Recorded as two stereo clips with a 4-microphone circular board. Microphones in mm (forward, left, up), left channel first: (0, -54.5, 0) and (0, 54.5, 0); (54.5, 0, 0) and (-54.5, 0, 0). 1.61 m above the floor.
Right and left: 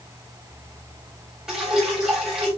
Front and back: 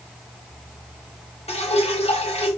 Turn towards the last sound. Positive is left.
turn(degrees=5)